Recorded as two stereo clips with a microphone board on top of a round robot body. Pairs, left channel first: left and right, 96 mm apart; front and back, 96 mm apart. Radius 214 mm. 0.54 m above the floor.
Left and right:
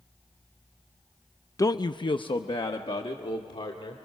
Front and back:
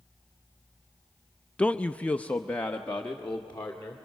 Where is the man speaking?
70° left, 0.6 m; by 4.0 s 75° left, 2 m.